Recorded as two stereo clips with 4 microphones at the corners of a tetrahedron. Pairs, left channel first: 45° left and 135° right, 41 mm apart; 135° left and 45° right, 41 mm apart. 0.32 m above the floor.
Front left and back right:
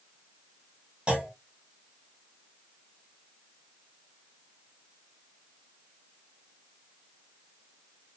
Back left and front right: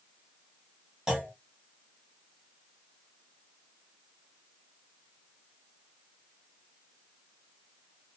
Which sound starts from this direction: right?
A clunk, at 1.1 s.